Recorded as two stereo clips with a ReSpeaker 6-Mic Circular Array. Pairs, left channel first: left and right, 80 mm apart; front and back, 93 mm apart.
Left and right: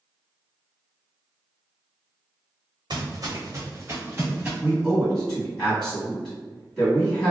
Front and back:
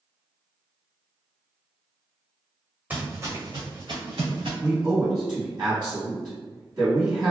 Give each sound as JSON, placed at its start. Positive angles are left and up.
{"t": 2.9, "sound": "footsteps", "azimuth_deg": -110, "distance_m": 0.9}
{"t": 4.6, "sound": "a man speaking", "azimuth_deg": 170, "distance_m": 1.7}